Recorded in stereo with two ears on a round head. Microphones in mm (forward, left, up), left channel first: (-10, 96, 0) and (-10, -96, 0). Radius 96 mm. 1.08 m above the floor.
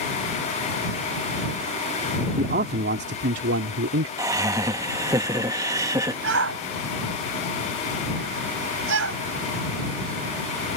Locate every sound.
2.4 s a man speaking: 40° right (ahead or behind); by 4.1 s 70° right (ahead or behind)
4.2 s laughter: 15° right (ahead or behind)
6.2 s a shout: 70° right (ahead or behind)